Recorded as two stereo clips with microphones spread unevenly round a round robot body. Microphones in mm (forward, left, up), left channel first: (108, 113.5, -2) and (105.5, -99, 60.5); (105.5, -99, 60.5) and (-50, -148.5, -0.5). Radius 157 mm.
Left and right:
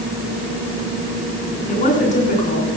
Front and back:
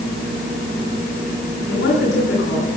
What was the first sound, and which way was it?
A woman speaking, 35° left.